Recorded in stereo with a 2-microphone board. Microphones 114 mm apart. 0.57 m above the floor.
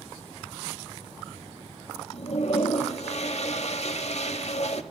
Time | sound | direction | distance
2.1 | a toilet flushing | 65° left (ahead or behind) | 0.9 m